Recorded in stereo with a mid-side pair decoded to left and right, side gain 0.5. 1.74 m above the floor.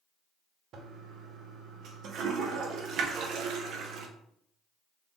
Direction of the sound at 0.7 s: 65° right.